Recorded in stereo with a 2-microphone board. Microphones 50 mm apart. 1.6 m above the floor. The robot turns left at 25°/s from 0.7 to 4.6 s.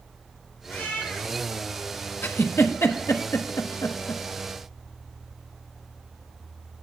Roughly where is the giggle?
Left.